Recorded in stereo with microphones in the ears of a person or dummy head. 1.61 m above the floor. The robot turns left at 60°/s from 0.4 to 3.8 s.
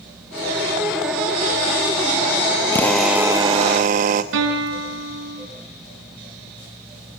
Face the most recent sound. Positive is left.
turn(degrees=-70)  # may be behind; listen again after turning